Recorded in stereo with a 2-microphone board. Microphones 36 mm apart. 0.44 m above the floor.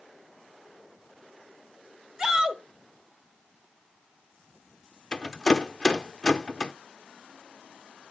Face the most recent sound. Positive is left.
turn(degrees=20)  # may be behind; listen again after turning